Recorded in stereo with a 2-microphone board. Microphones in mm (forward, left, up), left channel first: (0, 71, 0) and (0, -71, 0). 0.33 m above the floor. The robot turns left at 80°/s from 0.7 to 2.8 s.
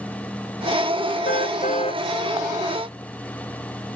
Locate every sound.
1.2 s a car horn: 90° left; by 2.0 s 30° left